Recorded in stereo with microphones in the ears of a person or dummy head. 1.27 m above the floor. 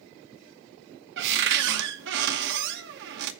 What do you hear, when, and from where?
1.2 s a cupboard door: 65° right (ahead or behind), 0.9 m